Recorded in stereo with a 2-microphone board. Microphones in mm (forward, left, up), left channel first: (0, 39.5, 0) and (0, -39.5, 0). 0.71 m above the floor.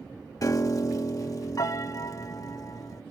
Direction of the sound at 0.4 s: 45° left (ahead or behind).